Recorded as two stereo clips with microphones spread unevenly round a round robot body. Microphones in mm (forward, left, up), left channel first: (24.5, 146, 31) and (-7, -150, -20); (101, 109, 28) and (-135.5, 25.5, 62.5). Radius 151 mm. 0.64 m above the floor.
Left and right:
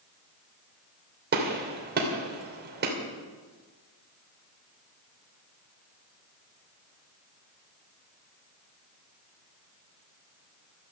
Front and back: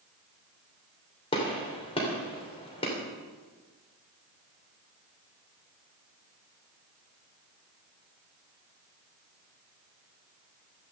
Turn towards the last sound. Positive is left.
turn(degrees=-45)